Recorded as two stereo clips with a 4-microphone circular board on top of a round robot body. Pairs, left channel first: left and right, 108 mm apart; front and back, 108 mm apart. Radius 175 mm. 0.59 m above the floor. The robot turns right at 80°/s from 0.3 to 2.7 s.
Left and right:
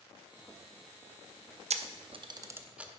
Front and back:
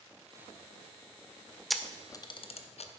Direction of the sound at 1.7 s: 90° right.